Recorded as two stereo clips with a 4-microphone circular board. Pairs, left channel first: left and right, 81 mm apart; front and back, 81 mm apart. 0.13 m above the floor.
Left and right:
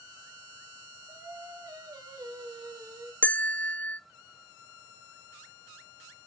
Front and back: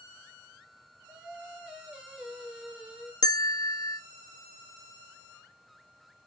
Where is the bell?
20° left, 0.7 m.